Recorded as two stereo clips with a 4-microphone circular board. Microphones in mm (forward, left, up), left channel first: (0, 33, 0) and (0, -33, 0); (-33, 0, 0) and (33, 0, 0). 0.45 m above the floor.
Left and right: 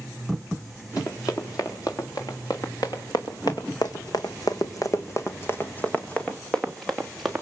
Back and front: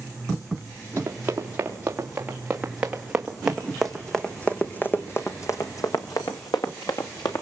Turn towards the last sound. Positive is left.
turn(degrees=180)